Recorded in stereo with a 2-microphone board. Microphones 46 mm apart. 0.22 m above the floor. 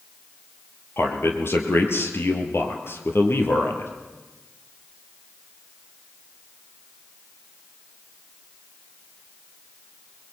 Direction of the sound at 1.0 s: 65° left (ahead or behind).